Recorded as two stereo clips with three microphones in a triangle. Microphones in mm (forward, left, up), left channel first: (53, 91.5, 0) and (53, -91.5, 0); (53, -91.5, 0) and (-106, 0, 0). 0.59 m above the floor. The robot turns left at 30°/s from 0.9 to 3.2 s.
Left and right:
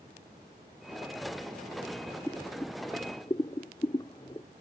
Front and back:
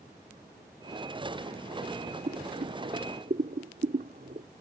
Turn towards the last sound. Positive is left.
turn(degrees=145)